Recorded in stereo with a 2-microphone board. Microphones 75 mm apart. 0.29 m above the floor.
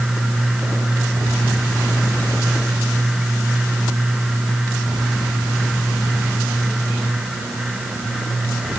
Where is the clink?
No clink in this recording.